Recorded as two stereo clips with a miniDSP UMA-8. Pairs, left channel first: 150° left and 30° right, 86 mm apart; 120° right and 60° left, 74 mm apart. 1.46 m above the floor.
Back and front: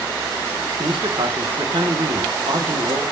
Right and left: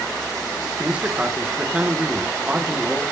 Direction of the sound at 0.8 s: 15° right.